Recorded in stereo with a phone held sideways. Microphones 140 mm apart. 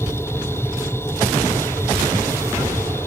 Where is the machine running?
15° left (ahead or behind).